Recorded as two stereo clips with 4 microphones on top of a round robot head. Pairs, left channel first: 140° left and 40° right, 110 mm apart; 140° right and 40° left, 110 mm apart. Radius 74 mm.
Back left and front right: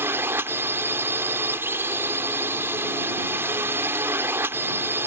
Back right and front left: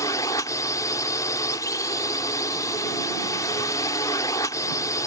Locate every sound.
0.0 s a drone: 100° right